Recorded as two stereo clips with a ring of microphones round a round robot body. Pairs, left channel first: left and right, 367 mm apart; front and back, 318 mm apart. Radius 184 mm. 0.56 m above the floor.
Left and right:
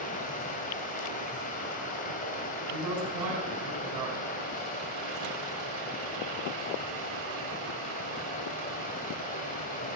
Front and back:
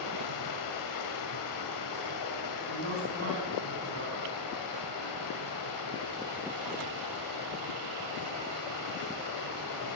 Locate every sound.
0.0 s running water: 20° left, 1.8 m
2.7 s a man speaking: 125° right, 4.5 m